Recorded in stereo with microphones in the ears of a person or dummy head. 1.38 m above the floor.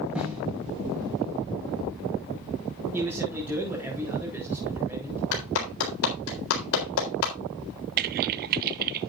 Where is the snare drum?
Centre (ahead or behind), 5.5 m.